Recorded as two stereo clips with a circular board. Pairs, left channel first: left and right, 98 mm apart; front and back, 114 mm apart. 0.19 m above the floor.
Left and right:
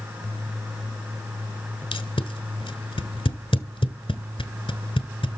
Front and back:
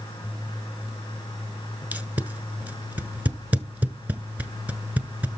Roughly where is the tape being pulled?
Left.